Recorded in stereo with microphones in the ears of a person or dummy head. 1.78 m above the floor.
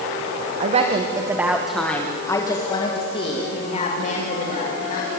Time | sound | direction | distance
0.6 | a woman speaking | 40° right (ahead or behind) | 1.8 m